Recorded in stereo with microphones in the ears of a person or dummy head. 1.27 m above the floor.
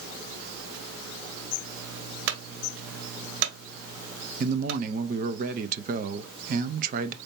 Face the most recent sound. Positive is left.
turn(degrees=-35)  # may be behind; listen again after turning